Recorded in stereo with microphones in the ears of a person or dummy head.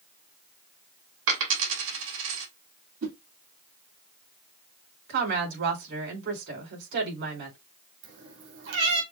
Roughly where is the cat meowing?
Right.